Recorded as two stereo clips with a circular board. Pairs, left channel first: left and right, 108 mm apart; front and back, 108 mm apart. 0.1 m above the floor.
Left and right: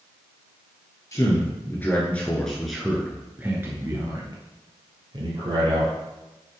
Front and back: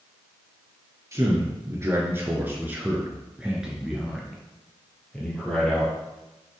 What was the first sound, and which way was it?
A man speaking, 130° left.